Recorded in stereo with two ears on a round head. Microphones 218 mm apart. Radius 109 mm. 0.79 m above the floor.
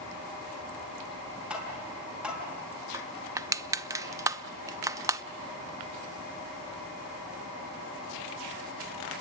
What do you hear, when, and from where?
1.5 s tapping: 5° right (ahead or behind), 5 m
2.9 s crushing: 15° right (ahead or behind), 0.6 m